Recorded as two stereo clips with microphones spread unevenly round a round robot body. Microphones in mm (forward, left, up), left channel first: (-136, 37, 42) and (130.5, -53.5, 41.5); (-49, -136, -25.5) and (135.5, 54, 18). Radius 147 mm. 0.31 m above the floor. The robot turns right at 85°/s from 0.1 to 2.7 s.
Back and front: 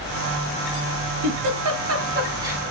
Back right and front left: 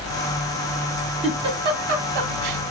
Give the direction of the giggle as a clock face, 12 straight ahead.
2 o'clock.